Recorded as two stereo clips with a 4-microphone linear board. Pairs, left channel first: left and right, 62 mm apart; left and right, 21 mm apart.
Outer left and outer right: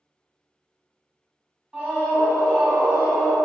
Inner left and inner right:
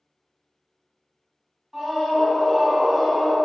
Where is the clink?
I don't hear a clink.